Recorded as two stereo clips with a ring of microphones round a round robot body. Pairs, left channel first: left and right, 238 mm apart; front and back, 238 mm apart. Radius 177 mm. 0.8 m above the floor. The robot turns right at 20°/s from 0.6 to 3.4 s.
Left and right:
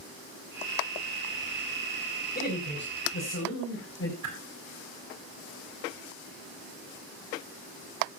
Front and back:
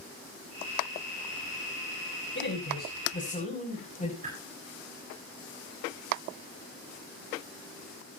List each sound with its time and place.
2.4 s a man speaking: 40° left, 5.5 m; by 4.1 s 60° left, 5.5 m
4.2 s a whoosh: 115° right, 5 m